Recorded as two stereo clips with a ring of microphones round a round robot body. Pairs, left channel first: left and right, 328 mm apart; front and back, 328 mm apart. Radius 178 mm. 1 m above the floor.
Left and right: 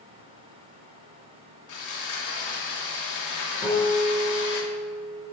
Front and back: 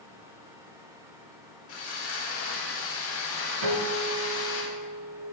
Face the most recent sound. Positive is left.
turn(degrees=-175)